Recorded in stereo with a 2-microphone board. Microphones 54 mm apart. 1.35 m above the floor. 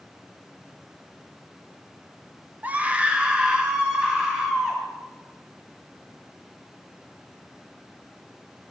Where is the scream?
35° right (ahead or behind), 0.8 m; by 4.8 s 10° right (ahead or behind), 3 m.